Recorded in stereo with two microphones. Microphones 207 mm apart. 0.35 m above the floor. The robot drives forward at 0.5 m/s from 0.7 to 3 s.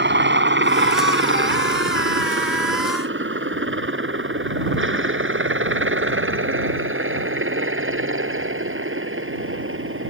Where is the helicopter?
60° right (ahead or behind); by 10.1 s 80° right.